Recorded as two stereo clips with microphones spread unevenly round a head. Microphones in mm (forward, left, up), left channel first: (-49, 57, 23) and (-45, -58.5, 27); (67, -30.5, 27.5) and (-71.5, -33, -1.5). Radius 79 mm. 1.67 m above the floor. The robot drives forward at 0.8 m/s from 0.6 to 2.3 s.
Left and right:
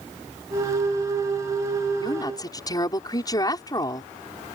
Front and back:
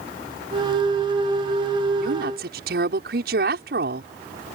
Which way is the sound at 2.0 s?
150° left.